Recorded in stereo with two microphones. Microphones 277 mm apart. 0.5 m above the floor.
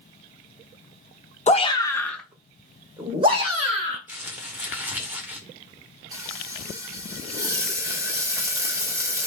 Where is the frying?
10° right (ahead or behind), 1.3 m.